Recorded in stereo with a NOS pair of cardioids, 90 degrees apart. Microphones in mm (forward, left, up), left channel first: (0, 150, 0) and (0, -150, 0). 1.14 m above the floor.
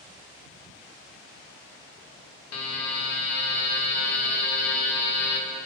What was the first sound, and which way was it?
A buzzer, 60° left.